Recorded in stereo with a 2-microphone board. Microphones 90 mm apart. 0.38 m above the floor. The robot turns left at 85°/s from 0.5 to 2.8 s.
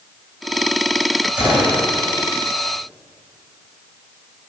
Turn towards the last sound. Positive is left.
turn(degrees=75)